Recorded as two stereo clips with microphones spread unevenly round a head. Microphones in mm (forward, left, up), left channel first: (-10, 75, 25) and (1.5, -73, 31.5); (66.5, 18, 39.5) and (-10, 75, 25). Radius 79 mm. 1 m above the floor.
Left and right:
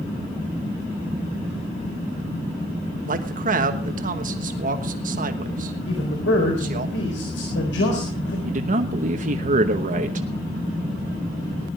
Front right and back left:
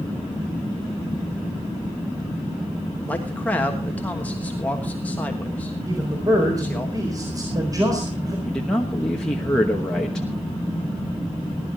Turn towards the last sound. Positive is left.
turn(degrees=-125)